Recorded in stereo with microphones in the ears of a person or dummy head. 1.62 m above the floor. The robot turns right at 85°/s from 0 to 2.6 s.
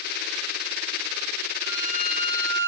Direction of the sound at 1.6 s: 115° left.